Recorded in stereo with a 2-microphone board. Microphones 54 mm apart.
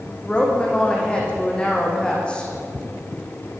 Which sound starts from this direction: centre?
A woman speaking, at 0.2 s.